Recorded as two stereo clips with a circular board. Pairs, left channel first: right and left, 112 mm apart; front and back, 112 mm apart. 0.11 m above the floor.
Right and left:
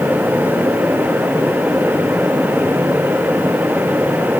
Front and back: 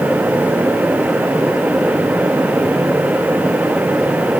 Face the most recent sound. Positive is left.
No sound to turn to.